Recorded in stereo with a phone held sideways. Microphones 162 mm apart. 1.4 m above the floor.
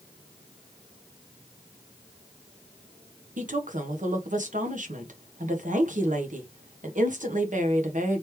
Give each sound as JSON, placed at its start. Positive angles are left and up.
{"t": 3.4, "sound": "a woman speaking", "side_deg": -50, "distance_m": 1.0}